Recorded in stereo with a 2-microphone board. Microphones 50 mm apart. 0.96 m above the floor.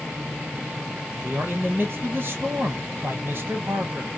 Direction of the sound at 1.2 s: 45° right (ahead or behind).